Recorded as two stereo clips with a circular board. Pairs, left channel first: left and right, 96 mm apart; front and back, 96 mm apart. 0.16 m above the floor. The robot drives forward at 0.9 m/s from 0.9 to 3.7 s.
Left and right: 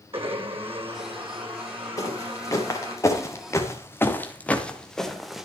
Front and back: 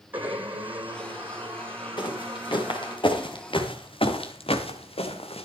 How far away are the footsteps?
About 5 m.